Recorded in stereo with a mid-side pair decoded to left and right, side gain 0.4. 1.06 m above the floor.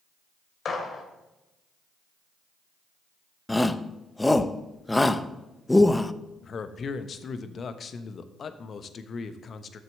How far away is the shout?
About 0.7 m.